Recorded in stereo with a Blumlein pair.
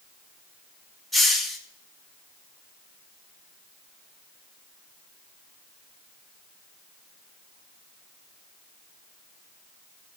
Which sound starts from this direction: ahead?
A hiss, at 1.1 s.